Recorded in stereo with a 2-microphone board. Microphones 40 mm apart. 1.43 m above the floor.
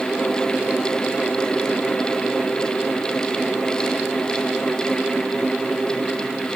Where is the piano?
No piano in this recording.